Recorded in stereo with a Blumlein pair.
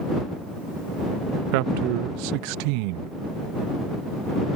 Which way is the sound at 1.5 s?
45° right.